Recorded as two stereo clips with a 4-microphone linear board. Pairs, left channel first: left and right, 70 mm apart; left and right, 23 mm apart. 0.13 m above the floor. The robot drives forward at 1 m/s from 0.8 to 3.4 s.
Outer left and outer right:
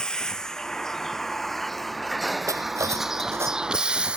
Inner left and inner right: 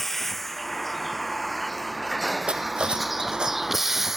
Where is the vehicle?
10° left (ahead or behind); by 4.2 s 15° right (ahead or behind).